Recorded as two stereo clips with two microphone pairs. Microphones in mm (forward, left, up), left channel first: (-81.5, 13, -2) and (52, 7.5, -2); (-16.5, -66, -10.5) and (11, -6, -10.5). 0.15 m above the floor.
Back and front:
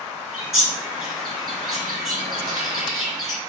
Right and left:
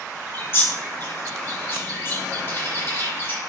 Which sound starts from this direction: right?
A bird, at 0.3 s.